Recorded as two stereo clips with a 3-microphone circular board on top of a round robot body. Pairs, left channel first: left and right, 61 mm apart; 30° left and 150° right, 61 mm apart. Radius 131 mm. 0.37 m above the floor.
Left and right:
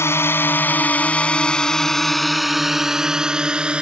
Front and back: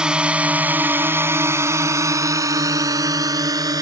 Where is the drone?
135° left; by 3.8 s 165° right.